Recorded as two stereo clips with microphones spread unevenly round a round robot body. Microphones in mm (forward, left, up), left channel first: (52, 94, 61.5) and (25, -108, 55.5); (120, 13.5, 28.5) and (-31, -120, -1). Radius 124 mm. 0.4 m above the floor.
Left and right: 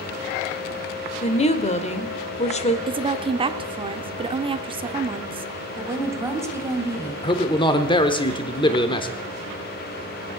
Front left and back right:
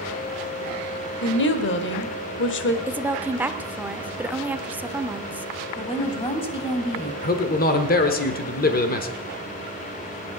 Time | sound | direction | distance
1.2 | a woman speaking | 30° left | 1.3 m
2.9 | a woman speaking | 85° right | 0.8 m
5.8 | a woman speaking | 25° right | 2 m
7.2 | a man speaking | 30° left | 1.1 m